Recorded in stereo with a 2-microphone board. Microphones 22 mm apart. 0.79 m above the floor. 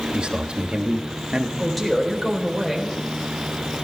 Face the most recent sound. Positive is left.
turn(degrees=-5)  # may be behind; listen again after turning